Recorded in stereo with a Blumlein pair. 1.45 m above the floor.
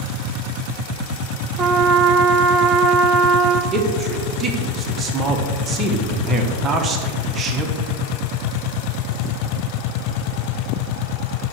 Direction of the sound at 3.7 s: 20° right.